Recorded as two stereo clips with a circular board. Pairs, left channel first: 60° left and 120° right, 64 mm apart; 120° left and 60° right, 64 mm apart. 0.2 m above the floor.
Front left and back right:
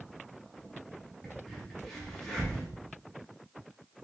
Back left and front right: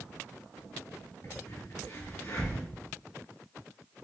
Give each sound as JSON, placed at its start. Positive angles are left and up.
{"t": 1.2, "sound": "a crack", "azimuth_deg": 140, "distance_m": 3.0}